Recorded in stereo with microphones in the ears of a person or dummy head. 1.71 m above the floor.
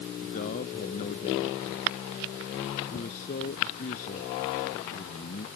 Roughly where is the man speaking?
Left.